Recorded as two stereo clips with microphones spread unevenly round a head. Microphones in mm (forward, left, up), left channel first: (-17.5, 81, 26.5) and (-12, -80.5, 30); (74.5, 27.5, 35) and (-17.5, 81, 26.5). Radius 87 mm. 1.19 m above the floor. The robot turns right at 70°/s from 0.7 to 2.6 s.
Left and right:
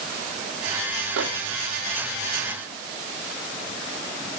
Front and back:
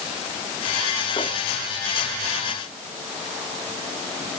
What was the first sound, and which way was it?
A microwave, 95° right.